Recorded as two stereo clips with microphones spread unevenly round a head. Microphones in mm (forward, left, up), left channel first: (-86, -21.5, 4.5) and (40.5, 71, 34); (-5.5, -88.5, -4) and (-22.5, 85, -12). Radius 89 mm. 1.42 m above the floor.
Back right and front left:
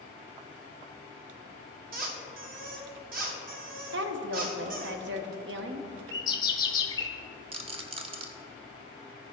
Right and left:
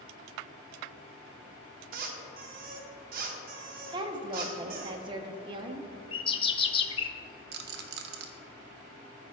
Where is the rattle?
75° left, 0.8 m.